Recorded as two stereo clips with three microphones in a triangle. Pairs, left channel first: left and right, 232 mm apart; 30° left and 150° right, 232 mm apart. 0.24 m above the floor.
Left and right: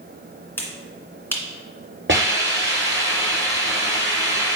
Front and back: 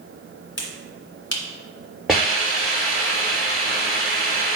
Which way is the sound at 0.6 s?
10° left.